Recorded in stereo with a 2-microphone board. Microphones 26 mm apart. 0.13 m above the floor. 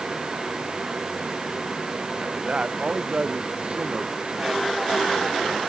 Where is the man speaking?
45° right (ahead or behind).